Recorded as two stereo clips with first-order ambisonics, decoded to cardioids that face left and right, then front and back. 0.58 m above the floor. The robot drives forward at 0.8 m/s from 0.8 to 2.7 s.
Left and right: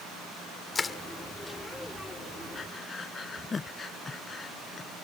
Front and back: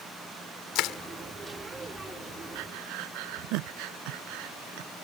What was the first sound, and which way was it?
Crushing, 20° left.